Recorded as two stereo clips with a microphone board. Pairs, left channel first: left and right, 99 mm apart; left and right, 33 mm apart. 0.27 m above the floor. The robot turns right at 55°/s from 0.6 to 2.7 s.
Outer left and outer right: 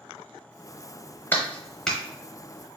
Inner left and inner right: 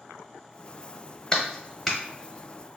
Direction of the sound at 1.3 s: 20° left (ahead or behind).